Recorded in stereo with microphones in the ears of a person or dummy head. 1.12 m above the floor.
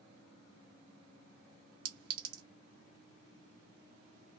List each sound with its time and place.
1.9 s a clink: 65° right (ahead or behind), 1.2 m